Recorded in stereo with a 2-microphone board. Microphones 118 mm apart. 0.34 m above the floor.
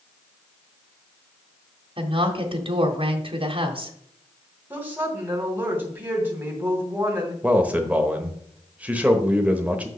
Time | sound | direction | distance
2.0 | a woman speaking | 50° right (ahead or behind) | 1.3 m
4.7 | a woman speaking | 15° right (ahead or behind) | 2.5 m
7.4 | a man speaking | 10° right (ahead or behind) | 0.9 m